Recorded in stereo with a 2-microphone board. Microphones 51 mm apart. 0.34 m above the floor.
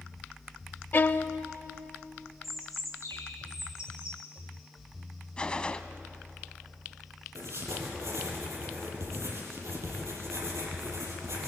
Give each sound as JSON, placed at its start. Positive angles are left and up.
{"t": 0.9, "sound": "a violin", "side_deg": 40, "distance_m": 0.7}
{"t": 2.4, "sound": "a bird", "side_deg": 75, "distance_m": 4.5}
{"t": 5.4, "sound": "a gunshot", "side_deg": 20, "distance_m": 1.0}
{"t": 7.3, "sound": "writing", "side_deg": -70, "distance_m": 6.5}